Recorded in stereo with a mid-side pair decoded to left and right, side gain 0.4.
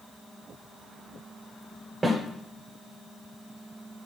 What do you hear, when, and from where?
2.0 s a snare drum: 25° right, 1.6 m